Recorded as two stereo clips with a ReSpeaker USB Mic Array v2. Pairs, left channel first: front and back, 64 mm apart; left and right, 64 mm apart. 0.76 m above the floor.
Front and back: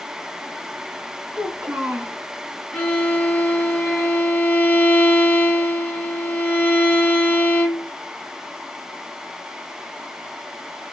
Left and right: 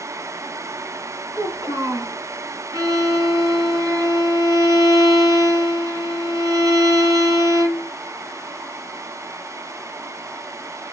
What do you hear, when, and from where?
1.3 s a child speaking: 110° right, 4 m
2.7 s a violin: 80° right, 2.5 m